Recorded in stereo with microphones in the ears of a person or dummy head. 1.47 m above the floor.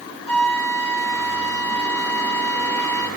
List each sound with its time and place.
0.3 s a flute: 30° left (ahead or behind), 2 m